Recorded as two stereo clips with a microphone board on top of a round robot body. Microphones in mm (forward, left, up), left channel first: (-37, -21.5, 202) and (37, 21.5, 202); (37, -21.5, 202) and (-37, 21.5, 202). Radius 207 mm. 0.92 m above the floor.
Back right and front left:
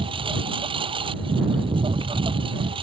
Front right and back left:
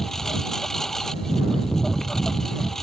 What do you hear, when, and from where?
0.0 s a lawn mower: 55° left